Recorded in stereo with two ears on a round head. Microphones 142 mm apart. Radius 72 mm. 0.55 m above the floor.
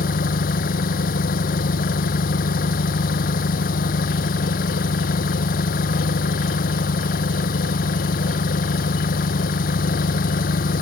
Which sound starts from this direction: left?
An engine running, at 0.0 s.